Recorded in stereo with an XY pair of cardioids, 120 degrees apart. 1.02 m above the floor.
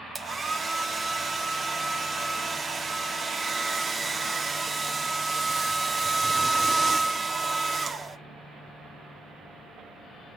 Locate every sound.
0.1 s a hair dryer: 30° right, 1.3 m